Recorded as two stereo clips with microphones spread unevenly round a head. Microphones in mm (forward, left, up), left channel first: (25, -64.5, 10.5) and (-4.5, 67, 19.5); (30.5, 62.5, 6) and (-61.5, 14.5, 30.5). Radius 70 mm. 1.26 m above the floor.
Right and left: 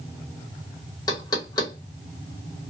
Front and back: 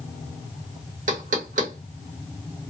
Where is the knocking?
140° right, 1.2 m.